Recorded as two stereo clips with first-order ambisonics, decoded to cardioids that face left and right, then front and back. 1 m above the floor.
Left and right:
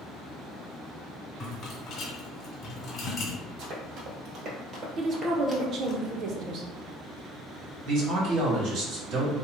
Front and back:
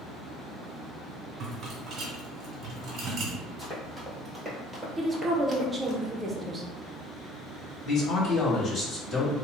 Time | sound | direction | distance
1.4 | a rattle | 130° left | 1.2 m
3.6 | running footsteps | 90° right | 1.5 m
5.0 | a woman speaking | 110° right | 0.6 m
7.8 | a man speaking | 60° right | 1.4 m